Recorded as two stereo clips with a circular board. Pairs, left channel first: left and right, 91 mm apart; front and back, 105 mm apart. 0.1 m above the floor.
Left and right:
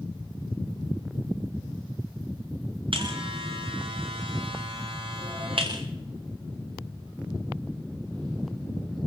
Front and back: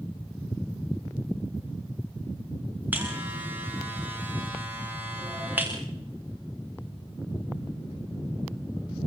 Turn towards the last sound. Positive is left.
turn(degrees=-105)